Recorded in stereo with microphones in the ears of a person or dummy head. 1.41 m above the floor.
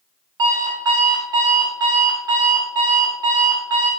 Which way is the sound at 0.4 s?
20° right (ahead or behind).